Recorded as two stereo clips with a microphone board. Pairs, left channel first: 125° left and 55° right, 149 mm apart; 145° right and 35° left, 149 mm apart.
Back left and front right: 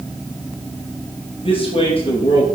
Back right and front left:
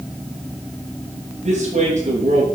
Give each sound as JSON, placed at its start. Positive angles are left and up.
{"t": 1.4, "sound": "a man speaking", "azimuth_deg": 70, "distance_m": 3.0}